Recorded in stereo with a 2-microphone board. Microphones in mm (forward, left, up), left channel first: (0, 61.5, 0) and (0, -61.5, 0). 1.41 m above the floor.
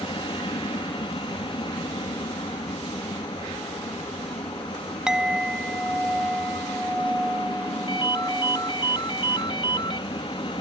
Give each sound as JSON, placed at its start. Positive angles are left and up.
{"t": 0.0, "sound": "an aircraft", "side_deg": 45}
{"t": 5.1, "sound": "a clink", "side_deg": -5}
{"t": 7.9, "sound": "a ringtone", "side_deg": 40}